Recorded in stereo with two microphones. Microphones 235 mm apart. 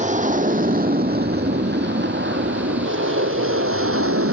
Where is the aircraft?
30° right (ahead or behind); by 4.3 s 70° right (ahead or behind).